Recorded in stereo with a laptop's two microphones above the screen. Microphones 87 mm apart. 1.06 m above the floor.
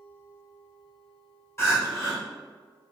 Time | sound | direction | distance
1.6 | crying | 30° left (ahead or behind) | 1.2 m